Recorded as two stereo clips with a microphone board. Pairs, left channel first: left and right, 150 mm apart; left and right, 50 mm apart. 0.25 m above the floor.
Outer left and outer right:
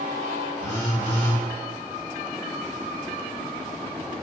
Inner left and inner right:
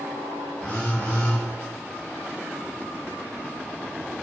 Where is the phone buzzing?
30° left (ahead or behind), 1.2 m.